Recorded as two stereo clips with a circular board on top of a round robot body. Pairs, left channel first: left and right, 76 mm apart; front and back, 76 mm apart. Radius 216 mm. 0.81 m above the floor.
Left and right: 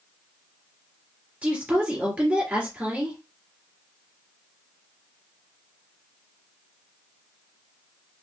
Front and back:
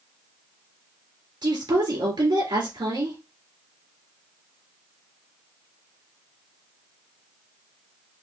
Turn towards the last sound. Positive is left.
turn(degrees=-165)